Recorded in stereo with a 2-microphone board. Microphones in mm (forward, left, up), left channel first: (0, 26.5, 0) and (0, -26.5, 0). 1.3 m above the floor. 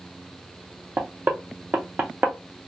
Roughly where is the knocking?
Right.